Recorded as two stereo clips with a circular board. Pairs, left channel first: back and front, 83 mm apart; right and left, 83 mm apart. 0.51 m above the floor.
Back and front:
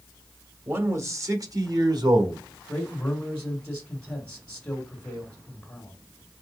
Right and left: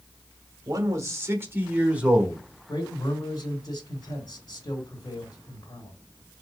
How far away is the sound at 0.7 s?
About 1.1 m.